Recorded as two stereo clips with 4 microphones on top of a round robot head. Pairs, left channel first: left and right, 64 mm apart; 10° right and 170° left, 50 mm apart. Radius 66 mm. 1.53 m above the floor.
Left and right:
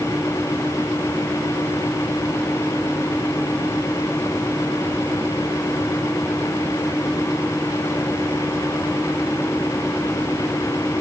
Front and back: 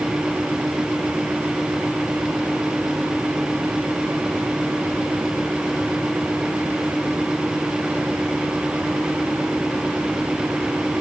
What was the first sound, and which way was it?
Only background noise.